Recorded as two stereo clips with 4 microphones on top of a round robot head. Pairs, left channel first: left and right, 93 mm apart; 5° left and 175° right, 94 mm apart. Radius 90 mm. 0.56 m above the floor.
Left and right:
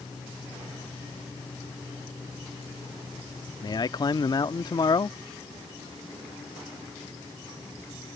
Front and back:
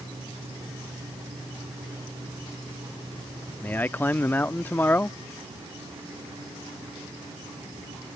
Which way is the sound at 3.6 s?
70° left.